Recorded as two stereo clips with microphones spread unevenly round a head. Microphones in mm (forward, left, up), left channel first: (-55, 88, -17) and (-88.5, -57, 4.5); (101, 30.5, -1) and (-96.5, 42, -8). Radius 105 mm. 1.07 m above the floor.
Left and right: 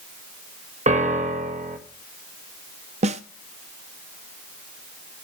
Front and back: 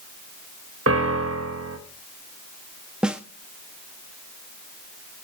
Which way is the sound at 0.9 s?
150° right.